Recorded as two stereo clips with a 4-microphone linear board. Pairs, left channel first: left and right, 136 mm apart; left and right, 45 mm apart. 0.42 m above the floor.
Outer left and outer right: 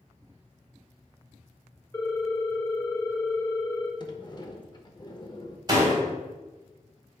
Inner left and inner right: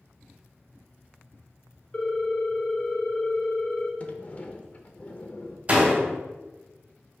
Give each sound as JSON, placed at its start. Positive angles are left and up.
{"t": 1.9, "sound": "a ringtone", "side_deg": 20, "distance_m": 0.9}
{"t": 4.0, "sound": "a sliding door", "side_deg": 30, "distance_m": 0.7}
{"t": 5.7, "sound": "a door slam", "side_deg": -30, "distance_m": 1.6}